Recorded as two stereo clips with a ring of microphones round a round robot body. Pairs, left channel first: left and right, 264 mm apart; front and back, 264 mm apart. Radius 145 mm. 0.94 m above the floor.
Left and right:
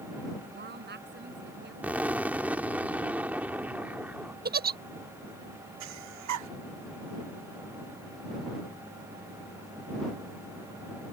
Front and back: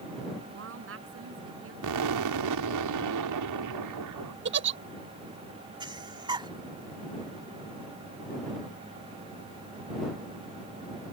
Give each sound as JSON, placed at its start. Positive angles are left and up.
{"t": 0.5, "sound": "a woman speaking", "azimuth_deg": -140}
{"t": 1.8, "sound": "an explosion", "azimuth_deg": -175}
{"t": 4.5, "sound": "a giggle", "azimuth_deg": -140}
{"t": 5.8, "sound": "breathing", "azimuth_deg": -105}